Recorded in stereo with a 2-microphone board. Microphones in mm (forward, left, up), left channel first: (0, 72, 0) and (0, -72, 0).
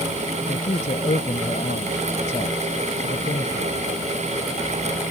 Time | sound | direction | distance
0.5 | a man speaking | 60° left (ahead or behind) | ?